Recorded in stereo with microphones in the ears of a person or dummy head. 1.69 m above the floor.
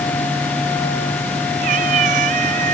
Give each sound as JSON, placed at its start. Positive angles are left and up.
{"t": 1.6, "sound": "a cat meowing", "side_deg": -50}